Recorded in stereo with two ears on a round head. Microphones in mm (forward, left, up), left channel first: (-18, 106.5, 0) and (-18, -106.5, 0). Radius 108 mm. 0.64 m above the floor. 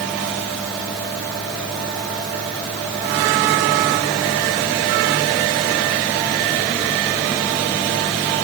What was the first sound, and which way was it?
Only background noise.